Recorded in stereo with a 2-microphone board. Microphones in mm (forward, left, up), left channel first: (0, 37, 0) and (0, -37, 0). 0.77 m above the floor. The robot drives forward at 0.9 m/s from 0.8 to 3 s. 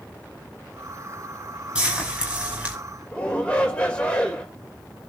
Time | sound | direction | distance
1.8 | frying | 15° right (ahead or behind) | 6 m
3.1 | a shout | 15° left (ahead or behind) | 3 m